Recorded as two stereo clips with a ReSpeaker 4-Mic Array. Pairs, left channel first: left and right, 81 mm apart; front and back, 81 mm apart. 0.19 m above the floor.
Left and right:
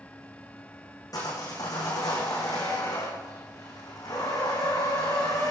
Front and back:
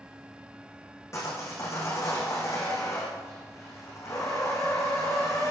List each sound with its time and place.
1.1 s sawing: 50° left, 4 m